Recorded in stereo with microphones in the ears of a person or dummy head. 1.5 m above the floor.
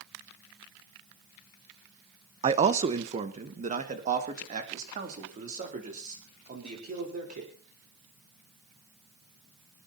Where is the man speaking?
30° right (ahead or behind), 1.0 m; by 7.5 s 45° right (ahead or behind), 5.5 m.